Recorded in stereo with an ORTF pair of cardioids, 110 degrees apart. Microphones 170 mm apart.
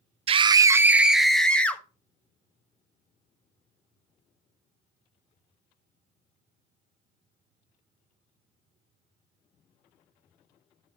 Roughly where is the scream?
Ahead right.